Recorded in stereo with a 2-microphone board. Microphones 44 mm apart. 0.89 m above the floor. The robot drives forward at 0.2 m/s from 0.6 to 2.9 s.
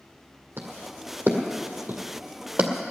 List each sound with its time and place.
0.6 s footsteps: 70° right (ahead or behind), 2.5 m; by 2.7 s 50° right (ahead or behind), 1.3 m